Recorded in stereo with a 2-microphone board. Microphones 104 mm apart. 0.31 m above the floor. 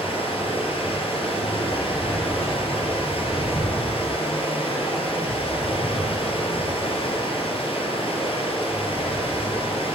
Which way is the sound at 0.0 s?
60° left (ahead or behind).